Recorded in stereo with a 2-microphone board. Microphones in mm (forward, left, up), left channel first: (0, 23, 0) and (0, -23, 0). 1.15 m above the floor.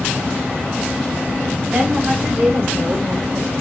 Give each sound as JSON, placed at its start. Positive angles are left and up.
{"t": 1.7, "sound": "a woman speaking", "side_deg": -25, "distance_m": 2.0}